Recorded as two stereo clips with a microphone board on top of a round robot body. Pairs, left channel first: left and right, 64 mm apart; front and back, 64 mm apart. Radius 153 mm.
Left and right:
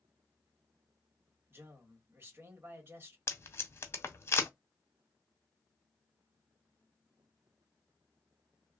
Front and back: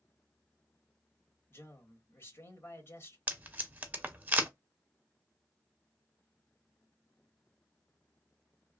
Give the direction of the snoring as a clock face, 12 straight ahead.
No snoring in this recording.